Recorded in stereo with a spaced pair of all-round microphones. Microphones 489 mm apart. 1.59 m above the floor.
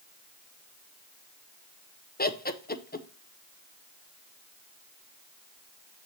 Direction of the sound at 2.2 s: 20° left (ahead or behind).